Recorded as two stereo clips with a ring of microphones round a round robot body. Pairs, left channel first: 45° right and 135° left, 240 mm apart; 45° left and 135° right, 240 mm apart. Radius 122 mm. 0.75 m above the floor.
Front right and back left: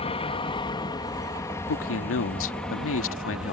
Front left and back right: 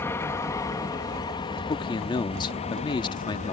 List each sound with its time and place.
0.0 s an aircraft: 20° right; by 3.5 s 50° left
1.7 s a man speaking: 25° right